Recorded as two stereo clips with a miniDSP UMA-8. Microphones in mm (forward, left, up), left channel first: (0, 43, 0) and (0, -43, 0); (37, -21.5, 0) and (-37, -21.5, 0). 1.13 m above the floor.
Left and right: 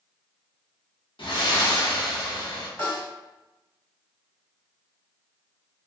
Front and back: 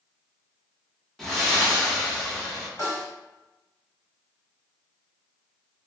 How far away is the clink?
No clink in this recording.